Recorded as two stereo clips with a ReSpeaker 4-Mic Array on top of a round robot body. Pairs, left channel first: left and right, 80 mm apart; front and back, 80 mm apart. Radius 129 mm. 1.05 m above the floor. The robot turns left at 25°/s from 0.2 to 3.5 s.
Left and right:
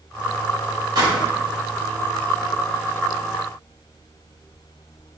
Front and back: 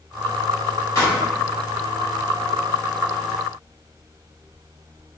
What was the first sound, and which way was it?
A pop, 50° right.